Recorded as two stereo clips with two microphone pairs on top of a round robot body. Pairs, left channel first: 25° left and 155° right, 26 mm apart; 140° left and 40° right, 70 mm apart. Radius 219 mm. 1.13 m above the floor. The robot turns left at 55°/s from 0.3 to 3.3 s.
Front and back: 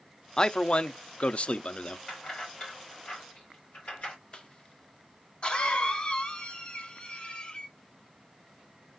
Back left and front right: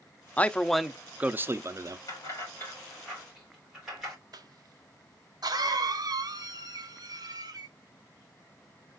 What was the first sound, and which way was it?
A man speaking, 75° left.